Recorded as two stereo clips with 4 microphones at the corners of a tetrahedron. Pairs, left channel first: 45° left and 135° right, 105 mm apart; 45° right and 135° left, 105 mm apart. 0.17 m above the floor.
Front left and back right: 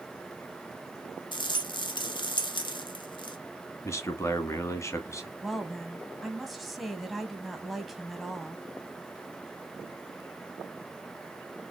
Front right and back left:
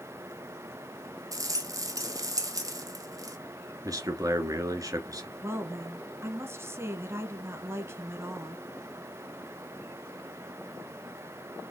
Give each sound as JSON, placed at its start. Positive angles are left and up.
{"t": 1.3, "sound": "a rattle", "azimuth_deg": 80, "distance_m": 0.8}
{"t": 3.8, "sound": "a man speaking", "azimuth_deg": 95, "distance_m": 1.5}
{"t": 5.4, "sound": "a woman speaking", "azimuth_deg": 135, "distance_m": 1.3}